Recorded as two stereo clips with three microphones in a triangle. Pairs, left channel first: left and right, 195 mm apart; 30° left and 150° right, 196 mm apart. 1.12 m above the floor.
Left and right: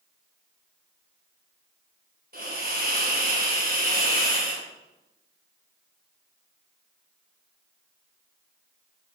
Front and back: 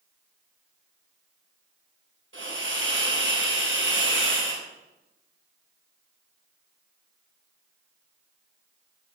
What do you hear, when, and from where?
2.3 s a hiss: 135° right, 6 m